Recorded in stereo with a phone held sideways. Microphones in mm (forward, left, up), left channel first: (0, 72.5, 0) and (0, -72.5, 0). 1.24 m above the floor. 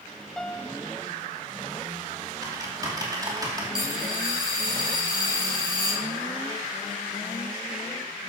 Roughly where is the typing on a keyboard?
Right.